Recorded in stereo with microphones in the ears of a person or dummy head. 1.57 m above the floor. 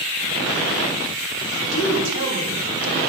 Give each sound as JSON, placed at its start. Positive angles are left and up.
{"t": 1.6, "sound": "a woman speaking", "side_deg": -60, "distance_m": 2.5}